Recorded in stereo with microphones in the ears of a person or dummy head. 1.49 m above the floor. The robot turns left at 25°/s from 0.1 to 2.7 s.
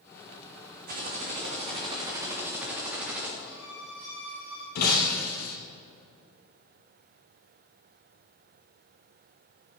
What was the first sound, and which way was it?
Typing on a keyboard, 130° right.